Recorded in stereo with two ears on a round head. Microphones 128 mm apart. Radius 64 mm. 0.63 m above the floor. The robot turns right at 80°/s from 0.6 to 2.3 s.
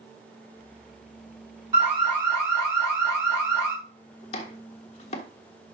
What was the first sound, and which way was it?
An alarm, 25° right.